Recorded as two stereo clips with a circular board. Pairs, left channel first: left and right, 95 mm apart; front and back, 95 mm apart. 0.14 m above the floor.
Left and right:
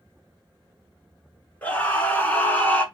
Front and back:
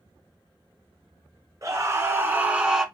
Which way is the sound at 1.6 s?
150° left.